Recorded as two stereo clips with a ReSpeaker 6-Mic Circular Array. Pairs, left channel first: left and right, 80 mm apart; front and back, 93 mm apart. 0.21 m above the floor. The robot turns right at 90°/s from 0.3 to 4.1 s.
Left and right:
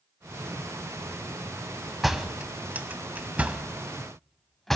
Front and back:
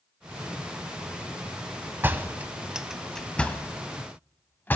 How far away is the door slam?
About 0.7 m.